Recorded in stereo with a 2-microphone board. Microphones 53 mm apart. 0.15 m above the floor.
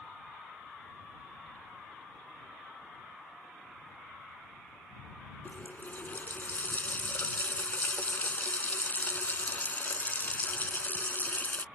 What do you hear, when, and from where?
5.5 s a running tap: 35° left (ahead or behind)